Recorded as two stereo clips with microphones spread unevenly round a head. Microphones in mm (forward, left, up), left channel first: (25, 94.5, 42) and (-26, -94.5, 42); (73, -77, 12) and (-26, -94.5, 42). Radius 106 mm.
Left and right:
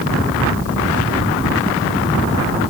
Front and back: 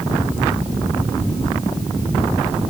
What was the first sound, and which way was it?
Only background noise.